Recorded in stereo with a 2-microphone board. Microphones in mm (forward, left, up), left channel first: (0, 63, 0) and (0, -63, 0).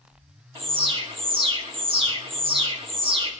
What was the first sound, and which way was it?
An alarm, 45° right (ahead or behind).